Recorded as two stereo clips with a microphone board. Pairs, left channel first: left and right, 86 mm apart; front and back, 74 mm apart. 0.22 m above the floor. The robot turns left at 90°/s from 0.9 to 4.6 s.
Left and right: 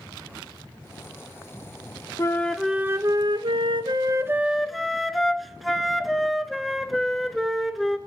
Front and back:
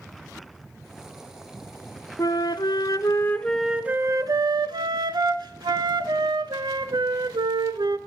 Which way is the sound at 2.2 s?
35° left.